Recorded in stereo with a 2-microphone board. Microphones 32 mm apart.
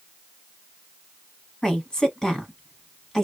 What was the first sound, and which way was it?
A woman speaking, 20° left (ahead or behind).